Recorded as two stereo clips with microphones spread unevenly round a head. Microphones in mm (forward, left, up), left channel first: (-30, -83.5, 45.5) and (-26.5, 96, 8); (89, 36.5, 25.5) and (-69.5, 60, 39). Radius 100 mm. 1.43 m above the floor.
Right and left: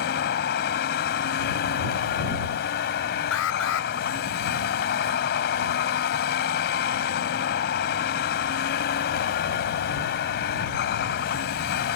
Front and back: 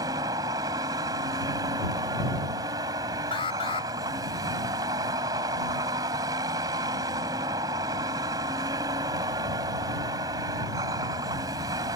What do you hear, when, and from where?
0.0 s a vehicle: 115° right
3.3 s an alarm: 75° right